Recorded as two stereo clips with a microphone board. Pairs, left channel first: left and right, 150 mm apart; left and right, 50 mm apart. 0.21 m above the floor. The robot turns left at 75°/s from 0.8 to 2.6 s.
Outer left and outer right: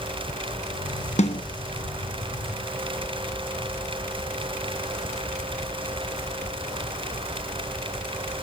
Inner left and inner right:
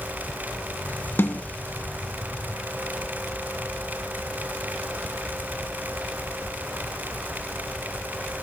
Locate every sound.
1.2 s a snare drum: 50° left (ahead or behind), 1.5 m; by 1.4 s 45° left (ahead or behind), 1.5 m